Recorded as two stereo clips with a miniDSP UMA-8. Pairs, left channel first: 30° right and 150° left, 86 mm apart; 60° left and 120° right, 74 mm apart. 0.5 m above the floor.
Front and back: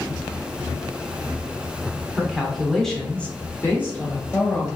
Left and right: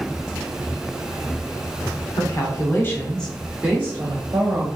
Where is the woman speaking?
65° left, 1.1 m; by 4.7 s 95° right, 1.2 m.